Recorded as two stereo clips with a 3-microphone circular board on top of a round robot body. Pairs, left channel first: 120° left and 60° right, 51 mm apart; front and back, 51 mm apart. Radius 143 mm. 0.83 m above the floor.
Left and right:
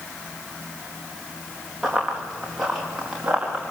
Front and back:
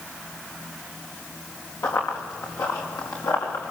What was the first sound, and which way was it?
Running footsteps, 30° left.